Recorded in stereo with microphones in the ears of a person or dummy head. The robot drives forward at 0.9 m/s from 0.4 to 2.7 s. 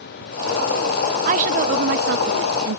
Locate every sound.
1.2 s a woman speaking: 35° right (ahead or behind); by 2.8 s 75° right (ahead or behind)